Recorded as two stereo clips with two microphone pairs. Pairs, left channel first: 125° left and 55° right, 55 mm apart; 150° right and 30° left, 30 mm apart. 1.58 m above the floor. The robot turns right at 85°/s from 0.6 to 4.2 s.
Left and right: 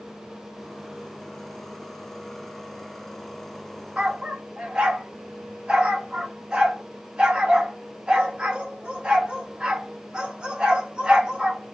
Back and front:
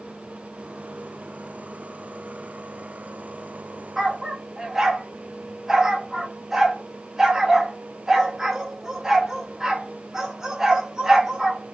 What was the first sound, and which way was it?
A dog barking, 30° right.